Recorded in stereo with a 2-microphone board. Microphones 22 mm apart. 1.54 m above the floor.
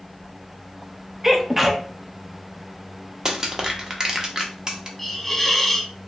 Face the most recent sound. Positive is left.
turn(degrees=5)  # may be behind; listen again after turning